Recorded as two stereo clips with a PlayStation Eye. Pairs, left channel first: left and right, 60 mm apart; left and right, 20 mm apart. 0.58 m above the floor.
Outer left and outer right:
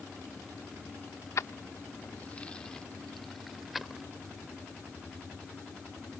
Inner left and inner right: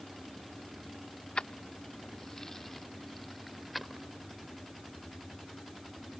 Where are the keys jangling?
55° left (ahead or behind); by 4.1 s 5° right (ahead or behind).